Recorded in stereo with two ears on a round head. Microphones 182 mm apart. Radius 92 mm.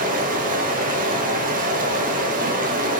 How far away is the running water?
About 0.7 m.